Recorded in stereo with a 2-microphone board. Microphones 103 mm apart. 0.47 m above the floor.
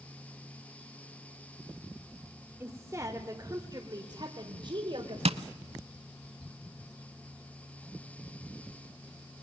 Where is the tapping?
65° right (ahead or behind), 0.7 m.